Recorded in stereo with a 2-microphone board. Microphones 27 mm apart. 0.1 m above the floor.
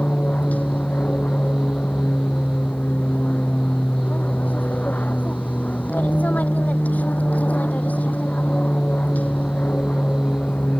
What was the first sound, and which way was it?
An aircraft, 70° left (ahead or behind).